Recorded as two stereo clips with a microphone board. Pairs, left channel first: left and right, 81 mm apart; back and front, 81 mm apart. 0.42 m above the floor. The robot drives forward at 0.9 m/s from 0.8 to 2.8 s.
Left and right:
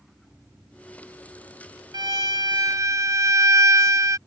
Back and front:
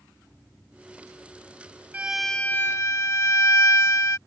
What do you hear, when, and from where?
1.9 s a violin: 70° right; by 4.2 s 130° right